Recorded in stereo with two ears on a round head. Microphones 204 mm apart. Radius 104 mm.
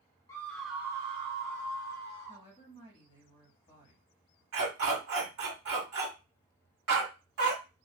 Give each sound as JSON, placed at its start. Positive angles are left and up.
{"t": 0.3, "sound": "a scream", "side_deg": 15, "distance_m": 0.7}
{"t": 2.3, "sound": "a woman speaking", "side_deg": 25, "distance_m": 1.0}
{"t": 4.5, "sound": "a dog barking", "side_deg": -70, "distance_m": 1.7}